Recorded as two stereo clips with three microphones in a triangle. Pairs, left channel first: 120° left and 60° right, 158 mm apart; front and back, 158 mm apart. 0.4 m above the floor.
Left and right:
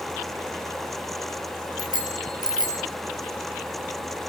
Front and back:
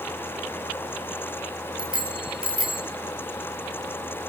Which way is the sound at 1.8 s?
120° right.